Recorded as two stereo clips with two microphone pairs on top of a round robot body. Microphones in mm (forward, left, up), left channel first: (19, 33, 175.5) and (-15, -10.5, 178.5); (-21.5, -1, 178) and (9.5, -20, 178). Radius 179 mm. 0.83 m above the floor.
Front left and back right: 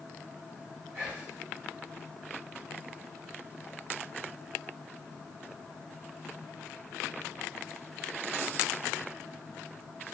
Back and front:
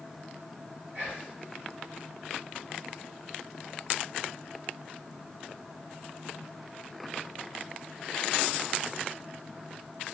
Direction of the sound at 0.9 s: 55° right.